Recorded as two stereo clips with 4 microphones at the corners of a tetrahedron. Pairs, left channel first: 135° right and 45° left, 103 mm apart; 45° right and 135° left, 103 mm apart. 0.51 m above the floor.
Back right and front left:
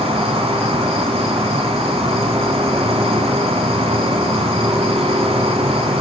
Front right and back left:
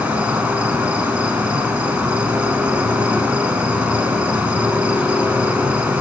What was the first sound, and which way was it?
An insect, 55° left.